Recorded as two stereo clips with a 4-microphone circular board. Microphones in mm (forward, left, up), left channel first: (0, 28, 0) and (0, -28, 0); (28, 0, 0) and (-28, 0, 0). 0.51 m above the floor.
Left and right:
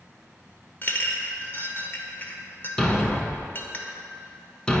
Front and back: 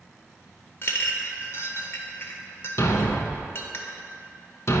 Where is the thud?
20° left, 0.7 m.